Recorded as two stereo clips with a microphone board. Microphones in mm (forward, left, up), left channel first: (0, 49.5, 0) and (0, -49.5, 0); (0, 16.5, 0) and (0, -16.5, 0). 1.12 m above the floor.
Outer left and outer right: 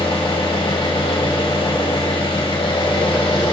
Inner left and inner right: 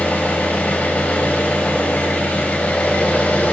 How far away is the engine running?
About 3 m.